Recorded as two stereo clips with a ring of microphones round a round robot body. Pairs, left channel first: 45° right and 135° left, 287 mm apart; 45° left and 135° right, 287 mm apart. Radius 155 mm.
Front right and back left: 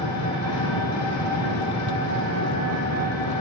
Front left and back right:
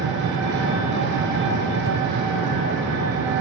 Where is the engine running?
80° right, 3 m.